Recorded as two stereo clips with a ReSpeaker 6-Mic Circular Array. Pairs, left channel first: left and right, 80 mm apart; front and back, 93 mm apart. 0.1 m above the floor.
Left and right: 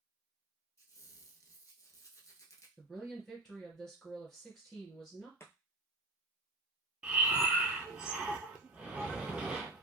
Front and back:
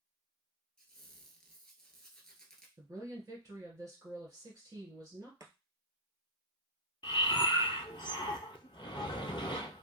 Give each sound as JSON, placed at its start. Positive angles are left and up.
{"t": 0.8, "sound": "a squeak", "azimuth_deg": 80, "distance_m": 0.8}
{"t": 2.8, "sound": "a woman speaking", "azimuth_deg": 170, "distance_m": 2.0}
{"t": 5.4, "sound": "chopping", "azimuth_deg": 140, "distance_m": 0.7}
{"t": 7.0, "sound": "breathing", "azimuth_deg": -15, "distance_m": 0.6}